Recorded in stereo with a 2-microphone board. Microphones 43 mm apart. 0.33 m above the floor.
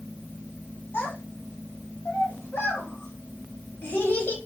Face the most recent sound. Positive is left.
turn(degrees=45)  # may be behind; listen again after turning